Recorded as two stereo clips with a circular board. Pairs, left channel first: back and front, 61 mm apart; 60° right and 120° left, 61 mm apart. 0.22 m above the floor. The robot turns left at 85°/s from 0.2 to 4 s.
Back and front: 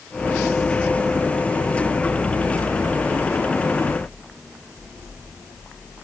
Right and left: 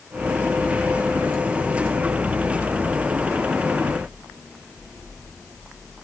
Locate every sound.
Only background noise.